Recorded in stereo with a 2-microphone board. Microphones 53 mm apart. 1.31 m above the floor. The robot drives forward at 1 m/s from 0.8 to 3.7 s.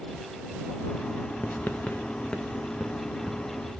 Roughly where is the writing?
Left.